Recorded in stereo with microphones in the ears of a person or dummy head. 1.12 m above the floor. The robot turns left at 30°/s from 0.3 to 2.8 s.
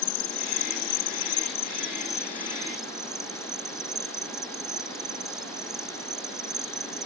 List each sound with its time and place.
0.0 s an insect: 70° left; by 7.1 s 5° right